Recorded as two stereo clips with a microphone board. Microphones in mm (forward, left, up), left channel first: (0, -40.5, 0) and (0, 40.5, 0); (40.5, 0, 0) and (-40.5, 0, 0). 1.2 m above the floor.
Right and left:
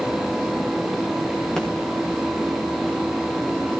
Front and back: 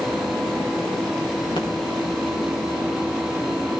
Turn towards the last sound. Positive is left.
turn(degrees=-5)